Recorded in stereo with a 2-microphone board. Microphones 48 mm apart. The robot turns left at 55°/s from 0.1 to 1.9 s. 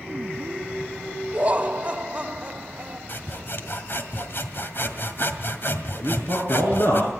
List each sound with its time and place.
1.3 s laughter: 85° right, 1.5 m; by 3.0 s 120° right, 1.5 m
3.1 s sawing: 50° left (ahead or behind), 1.9 m
6.0 s a man speaking: 60° left (ahead or behind), 5 m